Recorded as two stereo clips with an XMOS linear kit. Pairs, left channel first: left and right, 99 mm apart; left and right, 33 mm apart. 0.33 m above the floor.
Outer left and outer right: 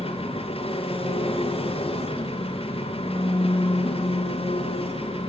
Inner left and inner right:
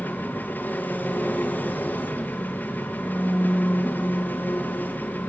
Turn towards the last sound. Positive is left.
turn(degrees=70)  # may be behind; listen again after turning